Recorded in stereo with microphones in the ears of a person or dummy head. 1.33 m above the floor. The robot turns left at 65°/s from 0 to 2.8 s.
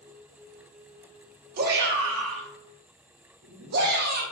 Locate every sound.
1.6 s a shout: 45° right (ahead or behind), 0.8 m; by 4.2 s 50° right (ahead or behind), 0.8 m